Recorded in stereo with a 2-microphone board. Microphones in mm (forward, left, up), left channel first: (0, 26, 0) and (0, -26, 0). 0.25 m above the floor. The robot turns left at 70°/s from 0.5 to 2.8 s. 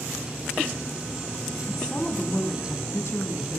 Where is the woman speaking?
175° left, 2 m; by 3.6 s 95° left, 2 m.